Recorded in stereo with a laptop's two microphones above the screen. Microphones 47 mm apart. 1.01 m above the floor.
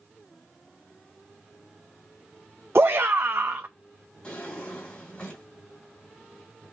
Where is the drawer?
25° left (ahead or behind), 3 m.